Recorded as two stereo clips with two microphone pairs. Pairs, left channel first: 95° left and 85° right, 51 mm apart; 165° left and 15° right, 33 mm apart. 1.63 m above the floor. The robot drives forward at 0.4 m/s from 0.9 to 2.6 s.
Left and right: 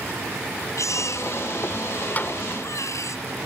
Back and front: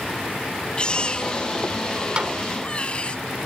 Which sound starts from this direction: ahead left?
A snare drum, at 2.2 s.